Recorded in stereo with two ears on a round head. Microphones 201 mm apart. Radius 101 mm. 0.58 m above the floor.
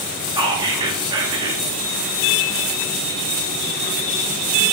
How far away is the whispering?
About 0.6 m.